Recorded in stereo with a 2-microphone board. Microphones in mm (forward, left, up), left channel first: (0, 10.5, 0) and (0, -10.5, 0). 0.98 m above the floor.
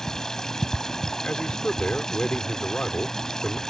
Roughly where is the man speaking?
Left.